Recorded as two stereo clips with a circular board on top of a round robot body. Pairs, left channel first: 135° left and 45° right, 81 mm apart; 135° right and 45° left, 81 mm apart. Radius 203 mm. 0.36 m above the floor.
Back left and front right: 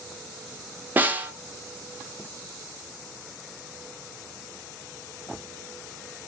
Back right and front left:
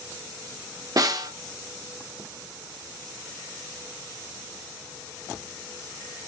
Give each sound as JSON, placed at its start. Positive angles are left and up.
{"t": 1.0, "sound": "a snare drum", "azimuth_deg": 20, "distance_m": 0.8}